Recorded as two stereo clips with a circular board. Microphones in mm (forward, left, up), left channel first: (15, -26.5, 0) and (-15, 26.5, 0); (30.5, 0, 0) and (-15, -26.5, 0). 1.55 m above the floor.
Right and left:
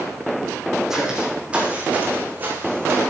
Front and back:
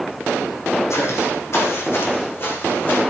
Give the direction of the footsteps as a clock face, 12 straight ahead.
11 o'clock.